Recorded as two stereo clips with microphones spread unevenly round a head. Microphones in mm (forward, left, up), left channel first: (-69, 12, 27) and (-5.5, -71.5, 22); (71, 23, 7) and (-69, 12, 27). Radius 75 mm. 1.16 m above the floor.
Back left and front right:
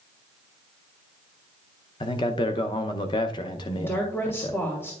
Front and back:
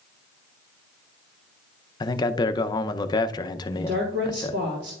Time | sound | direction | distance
2.0 | a man speaking | 65° left | 0.6 m
3.8 | a woman speaking | 165° right | 2.5 m